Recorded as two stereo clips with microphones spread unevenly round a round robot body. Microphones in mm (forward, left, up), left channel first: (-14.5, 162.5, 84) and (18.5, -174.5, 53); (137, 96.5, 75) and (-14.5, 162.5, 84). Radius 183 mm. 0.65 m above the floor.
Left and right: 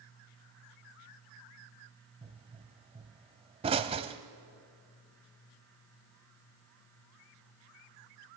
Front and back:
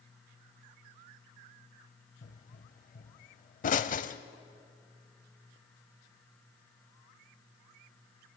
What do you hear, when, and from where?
2.2 s a pop: 10° right, 0.6 m